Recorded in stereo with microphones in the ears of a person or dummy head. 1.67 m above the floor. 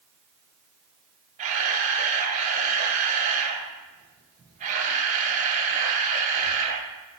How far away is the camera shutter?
About 0.7 m.